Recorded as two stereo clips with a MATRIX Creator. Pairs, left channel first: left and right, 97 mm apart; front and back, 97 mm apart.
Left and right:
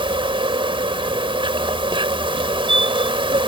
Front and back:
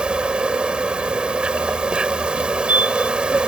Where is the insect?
100° right.